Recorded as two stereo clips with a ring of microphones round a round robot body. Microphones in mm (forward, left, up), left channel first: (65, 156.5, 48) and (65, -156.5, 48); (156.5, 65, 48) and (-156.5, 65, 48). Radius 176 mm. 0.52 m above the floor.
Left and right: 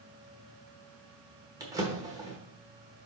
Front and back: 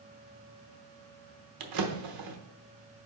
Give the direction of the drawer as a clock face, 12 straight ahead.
6 o'clock.